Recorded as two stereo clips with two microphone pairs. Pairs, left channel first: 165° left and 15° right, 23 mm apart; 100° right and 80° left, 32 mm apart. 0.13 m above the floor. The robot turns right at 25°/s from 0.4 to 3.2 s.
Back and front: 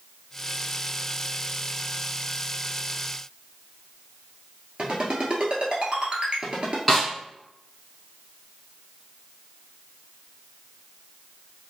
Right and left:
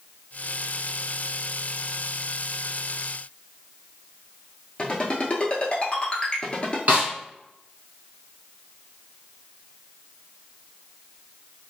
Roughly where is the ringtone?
Ahead right.